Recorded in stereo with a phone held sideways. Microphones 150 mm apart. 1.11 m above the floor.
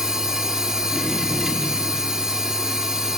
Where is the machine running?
5° right (ahead or behind), 2 m.